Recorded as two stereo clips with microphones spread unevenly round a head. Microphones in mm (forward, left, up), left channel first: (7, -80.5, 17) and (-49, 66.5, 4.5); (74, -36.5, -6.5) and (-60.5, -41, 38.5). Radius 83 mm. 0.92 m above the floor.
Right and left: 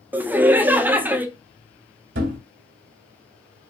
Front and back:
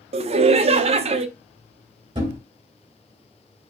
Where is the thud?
120° left, 2 m.